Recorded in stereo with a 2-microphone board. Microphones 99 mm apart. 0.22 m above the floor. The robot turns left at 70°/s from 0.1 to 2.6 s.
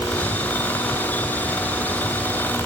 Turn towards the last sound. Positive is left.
No sound to turn to.